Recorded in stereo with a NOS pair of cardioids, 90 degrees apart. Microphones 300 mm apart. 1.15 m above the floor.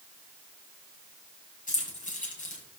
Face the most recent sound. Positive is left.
turn(degrees=25)